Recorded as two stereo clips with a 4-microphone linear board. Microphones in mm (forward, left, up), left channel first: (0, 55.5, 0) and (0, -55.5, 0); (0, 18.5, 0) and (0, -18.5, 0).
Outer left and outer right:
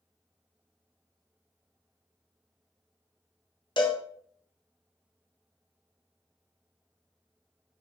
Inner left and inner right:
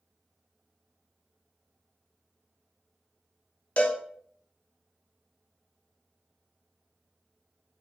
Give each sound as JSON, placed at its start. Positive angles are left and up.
{"t": 3.8, "sound": "a cowbell", "side_deg": 45, "distance_m": 0.5}